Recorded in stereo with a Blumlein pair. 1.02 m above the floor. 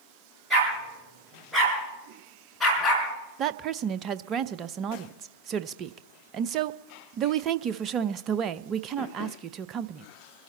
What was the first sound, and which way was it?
A dog barking, 10° right.